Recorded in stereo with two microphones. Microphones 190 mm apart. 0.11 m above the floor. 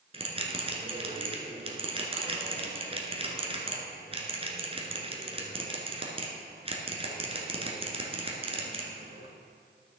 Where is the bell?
30° right (ahead or behind), 1.3 m.